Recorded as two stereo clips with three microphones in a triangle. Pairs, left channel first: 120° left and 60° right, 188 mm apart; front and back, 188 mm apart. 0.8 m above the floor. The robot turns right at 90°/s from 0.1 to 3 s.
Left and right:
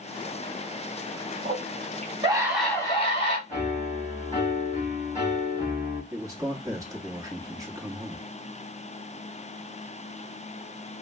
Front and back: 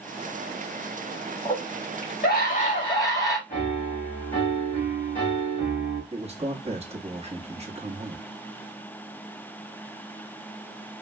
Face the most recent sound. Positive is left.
turn(degrees=-130)